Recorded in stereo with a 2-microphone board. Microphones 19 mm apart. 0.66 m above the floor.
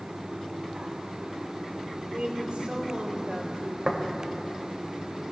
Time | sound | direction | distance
2.1 | a woman speaking | 70° right (ahead or behind) | 3.5 m
3.9 | tapping | 40° right (ahead or behind) | 2 m